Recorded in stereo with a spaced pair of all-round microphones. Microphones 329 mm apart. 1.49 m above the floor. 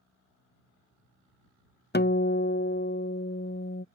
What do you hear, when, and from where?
1.9 s a guitar: 30° left (ahead or behind)